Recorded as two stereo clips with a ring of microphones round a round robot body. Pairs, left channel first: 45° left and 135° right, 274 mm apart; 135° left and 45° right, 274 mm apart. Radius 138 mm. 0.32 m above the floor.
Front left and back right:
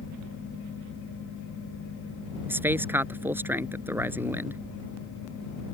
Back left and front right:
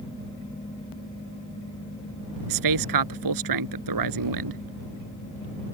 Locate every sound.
2.5 s a man speaking: 50° right